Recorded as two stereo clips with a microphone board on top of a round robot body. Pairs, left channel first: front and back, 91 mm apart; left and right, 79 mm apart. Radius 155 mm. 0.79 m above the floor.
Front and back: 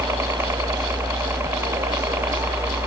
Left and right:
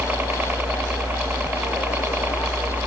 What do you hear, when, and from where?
0.0 s a helicopter: 140° right; by 2.9 s 135° right